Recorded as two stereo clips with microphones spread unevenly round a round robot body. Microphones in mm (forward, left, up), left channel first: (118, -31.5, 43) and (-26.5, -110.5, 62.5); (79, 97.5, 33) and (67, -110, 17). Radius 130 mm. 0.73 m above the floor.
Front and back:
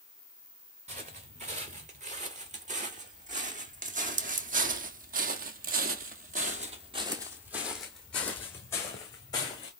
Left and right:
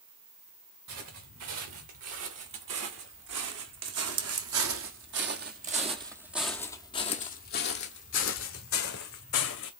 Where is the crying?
No crying in this recording.